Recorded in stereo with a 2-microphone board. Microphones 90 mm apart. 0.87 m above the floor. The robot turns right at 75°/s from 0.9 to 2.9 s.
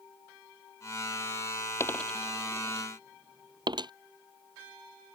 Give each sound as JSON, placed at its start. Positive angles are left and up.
{"t": 1.8, "sound": "a dropped coin", "side_deg": 30}